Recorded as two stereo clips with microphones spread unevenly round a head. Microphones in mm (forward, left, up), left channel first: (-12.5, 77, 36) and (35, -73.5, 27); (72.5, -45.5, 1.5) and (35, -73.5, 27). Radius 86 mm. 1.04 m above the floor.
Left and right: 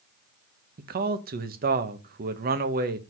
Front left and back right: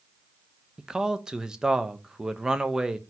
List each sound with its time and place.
0.8 s a man speaking: 55° right, 1.0 m